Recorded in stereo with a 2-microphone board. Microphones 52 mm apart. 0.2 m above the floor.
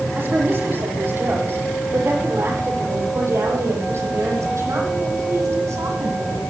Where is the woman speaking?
35° right (ahead or behind), 8 m; by 6.4 s 70° right (ahead or behind), 9 m.